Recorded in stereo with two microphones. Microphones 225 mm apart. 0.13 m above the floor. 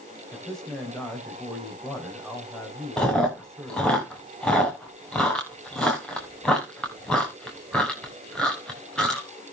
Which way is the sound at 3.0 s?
5° left (ahead or behind).